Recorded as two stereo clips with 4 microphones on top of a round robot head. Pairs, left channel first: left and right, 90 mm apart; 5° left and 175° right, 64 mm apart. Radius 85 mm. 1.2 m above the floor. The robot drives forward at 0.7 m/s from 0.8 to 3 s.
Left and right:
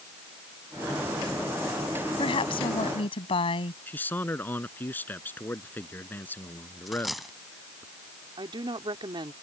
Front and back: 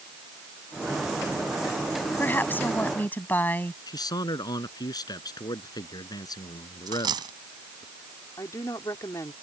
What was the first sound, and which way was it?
A woman speaking, 60° left.